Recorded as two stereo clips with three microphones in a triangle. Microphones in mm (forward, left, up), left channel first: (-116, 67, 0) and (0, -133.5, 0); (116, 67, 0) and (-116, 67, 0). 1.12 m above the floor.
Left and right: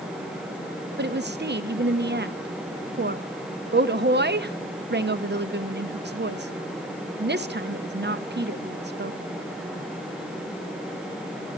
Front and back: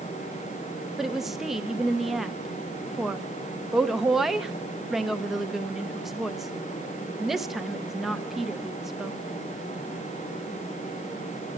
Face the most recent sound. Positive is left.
turn(degrees=-90)